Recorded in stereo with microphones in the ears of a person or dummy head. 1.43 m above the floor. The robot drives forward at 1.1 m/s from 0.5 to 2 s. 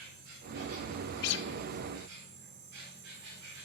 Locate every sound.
0.0 s an insect: 70° right (ahead or behind), 3 m; by 3.7 s 80° right, 3 m
1.2 s a guitar: 50° left (ahead or behind), 0.5 m; by 1.5 s 60° left (ahead or behind), 0.5 m